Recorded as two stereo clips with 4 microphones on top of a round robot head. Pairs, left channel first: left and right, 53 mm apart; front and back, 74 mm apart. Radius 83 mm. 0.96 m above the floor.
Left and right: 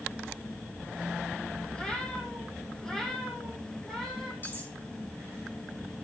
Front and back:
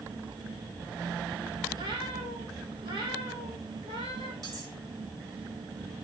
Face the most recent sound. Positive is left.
turn(degrees=140)